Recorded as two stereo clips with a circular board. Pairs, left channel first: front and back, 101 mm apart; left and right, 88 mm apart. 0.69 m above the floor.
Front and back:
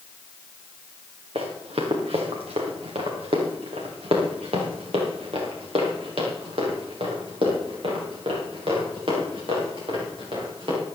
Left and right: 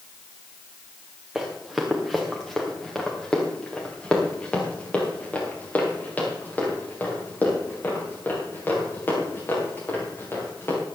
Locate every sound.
1.4 s running footsteps: 175° right, 3 m; by 10.8 s 155° left, 8 m